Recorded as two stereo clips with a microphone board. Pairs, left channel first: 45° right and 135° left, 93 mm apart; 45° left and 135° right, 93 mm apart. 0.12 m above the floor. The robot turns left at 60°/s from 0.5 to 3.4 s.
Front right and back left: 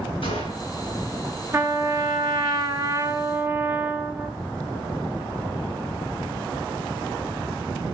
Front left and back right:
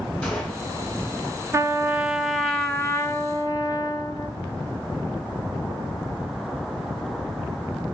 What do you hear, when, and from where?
0.2 s a gunshot: 35° right, 7 m; by 0.7 s 45° right, 7 m
1.5 s a trumpet: straight behind, 0.9 m; by 4.3 s 70° left, 0.9 m